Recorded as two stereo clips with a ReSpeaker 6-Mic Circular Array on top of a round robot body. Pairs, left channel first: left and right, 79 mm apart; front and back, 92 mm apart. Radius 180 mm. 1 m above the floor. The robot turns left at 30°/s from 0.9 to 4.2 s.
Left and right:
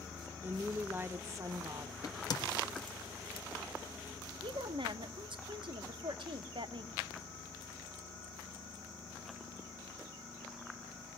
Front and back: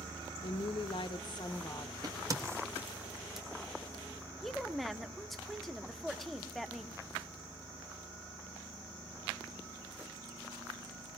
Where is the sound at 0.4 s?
25° right, 1.1 m; by 1.9 s 55° right, 1.1 m.